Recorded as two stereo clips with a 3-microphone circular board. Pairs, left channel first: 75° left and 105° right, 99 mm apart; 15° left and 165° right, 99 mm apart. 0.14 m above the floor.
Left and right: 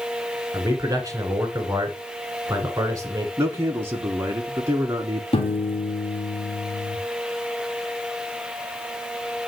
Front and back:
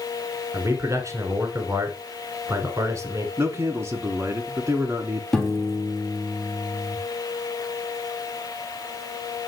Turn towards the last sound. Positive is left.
turn(degrees=105)